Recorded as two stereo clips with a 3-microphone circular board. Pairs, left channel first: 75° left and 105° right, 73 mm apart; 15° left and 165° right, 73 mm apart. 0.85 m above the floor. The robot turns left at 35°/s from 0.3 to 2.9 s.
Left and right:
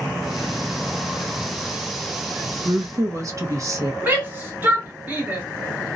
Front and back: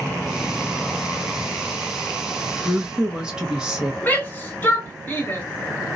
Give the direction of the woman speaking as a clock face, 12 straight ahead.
2 o'clock.